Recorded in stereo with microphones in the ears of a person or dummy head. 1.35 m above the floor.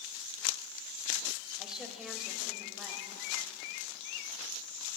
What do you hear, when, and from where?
1.6 s a woman speaking: 5° right (ahead or behind), 1.9 m